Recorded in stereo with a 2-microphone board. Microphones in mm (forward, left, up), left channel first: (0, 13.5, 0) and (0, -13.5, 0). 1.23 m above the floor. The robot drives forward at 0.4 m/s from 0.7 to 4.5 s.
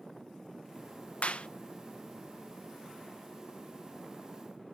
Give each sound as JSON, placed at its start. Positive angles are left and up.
{"t": 1.2, "sound": "a clap", "side_deg": 55, "distance_m": 0.6}